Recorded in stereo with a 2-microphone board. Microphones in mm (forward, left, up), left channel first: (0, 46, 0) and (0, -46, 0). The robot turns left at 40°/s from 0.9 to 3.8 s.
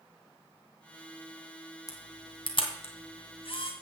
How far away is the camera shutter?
About 2 m.